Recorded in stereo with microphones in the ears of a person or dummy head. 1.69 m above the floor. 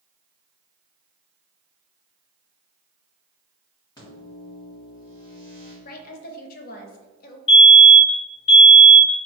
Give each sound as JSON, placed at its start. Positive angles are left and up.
{"t": 4.0, "sound": "a microwave", "side_deg": 25, "distance_m": 1.8}
{"t": 5.8, "sound": "a woman speaking", "side_deg": 50, "distance_m": 0.7}
{"t": 7.5, "sound": "a fire alarm", "side_deg": 30, "distance_m": 1.1}